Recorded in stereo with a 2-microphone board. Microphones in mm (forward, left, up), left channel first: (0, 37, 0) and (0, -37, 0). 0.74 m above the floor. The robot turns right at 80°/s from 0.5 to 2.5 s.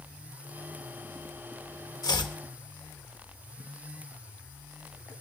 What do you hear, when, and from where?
2.0 s chopping: 55° left (ahead or behind), 1.0 m; by 2.4 s 80° left, 1.0 m